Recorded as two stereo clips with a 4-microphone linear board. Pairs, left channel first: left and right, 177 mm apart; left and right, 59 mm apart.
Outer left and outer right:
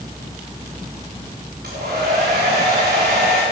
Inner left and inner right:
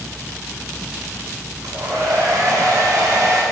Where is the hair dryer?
50° right (ahead or behind), 5.5 m.